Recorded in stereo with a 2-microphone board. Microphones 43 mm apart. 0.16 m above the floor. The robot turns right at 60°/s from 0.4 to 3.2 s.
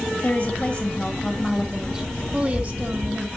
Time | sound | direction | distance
0.2 | a woman speaking | 25° left (ahead or behind) | 1.7 m